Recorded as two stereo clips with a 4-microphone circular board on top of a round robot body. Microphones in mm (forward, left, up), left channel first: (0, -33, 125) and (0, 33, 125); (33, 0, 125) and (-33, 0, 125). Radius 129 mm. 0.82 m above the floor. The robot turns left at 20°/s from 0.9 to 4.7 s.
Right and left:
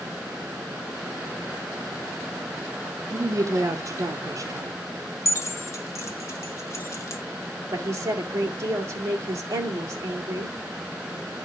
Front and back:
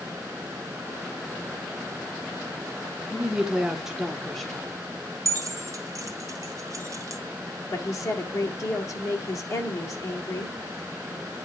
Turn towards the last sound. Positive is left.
turn(degrees=45)